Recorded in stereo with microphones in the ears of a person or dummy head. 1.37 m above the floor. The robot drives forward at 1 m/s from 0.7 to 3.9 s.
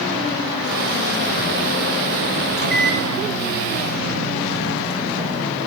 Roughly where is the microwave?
Right.